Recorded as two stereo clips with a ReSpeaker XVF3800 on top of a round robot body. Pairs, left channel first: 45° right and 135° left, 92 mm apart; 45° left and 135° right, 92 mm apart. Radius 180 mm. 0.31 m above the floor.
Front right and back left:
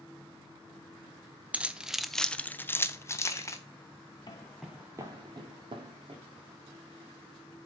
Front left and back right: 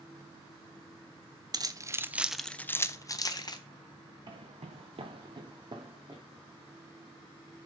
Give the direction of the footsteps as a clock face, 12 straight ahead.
3 o'clock.